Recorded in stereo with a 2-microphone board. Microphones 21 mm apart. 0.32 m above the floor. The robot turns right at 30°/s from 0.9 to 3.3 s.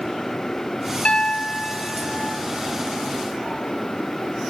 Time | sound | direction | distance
1.1 | a piano | 85° left | 1.5 m